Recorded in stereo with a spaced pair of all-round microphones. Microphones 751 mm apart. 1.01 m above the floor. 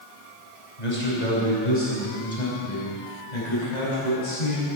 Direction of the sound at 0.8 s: 80° left.